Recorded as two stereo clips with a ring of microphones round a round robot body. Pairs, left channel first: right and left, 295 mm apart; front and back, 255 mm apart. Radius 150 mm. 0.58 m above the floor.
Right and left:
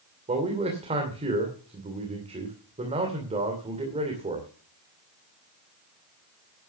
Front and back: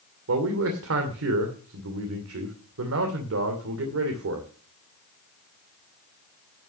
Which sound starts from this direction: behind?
A man speaking, at 0.3 s.